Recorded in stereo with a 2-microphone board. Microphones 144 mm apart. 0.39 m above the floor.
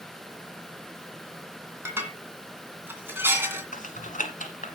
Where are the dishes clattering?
15° right (ahead or behind), 2 m.